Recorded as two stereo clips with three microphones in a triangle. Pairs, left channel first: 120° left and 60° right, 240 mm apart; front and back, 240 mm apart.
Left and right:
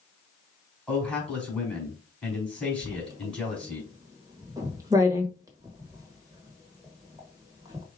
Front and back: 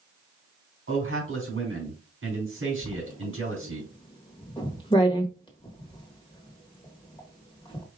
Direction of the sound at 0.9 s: 155° right.